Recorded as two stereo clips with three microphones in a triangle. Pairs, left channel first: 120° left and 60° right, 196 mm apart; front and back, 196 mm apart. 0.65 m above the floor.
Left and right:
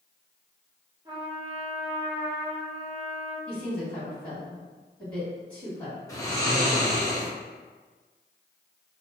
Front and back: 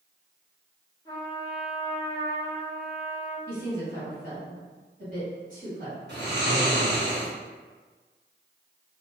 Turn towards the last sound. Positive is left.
turn(degrees=-170)